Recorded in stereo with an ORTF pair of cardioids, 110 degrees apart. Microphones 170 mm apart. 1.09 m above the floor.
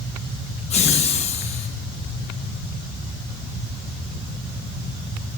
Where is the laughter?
40° left, 1.1 m.